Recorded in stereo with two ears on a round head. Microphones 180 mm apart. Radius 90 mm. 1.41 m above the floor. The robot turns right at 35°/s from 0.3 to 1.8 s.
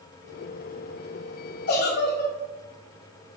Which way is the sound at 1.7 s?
45° left (ahead or behind).